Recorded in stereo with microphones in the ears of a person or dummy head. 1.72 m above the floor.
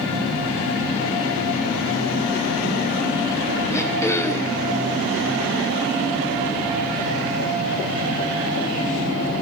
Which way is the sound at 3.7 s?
10° left (ahead or behind).